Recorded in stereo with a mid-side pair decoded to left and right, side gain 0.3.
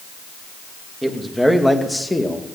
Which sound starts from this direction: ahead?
A man speaking, at 1.0 s.